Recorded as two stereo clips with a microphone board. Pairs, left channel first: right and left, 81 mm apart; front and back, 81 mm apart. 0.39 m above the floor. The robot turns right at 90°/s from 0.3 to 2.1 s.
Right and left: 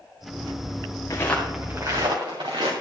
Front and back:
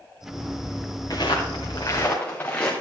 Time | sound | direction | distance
1.1 | footsteps | 40° right | 3 m